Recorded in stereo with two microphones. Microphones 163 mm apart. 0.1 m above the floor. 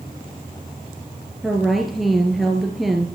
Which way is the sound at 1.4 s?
Centre (ahead or behind).